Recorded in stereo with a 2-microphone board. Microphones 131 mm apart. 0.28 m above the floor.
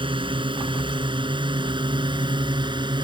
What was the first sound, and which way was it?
A drone, 40° right (ahead or behind).